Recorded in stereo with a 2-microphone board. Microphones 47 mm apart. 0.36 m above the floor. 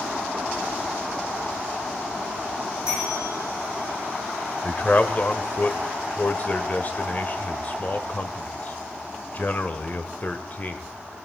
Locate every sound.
2.9 s a bell: 85° left, 5.5 m
4.6 s a man speaking: 40° left (ahead or behind), 1.0 m